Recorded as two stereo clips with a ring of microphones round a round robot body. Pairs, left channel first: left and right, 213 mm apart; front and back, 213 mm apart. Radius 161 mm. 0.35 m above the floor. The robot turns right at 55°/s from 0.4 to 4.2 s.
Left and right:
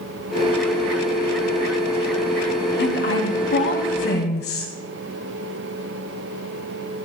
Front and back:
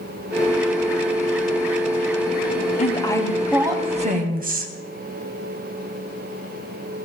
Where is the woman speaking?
55° left, 2.5 m; by 4.7 s 135° left, 2.5 m.